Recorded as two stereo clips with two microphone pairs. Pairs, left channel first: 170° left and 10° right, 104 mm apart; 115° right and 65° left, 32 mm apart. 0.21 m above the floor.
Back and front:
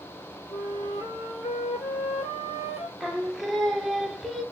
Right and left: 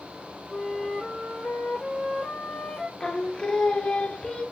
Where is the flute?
175° left, 0.9 m.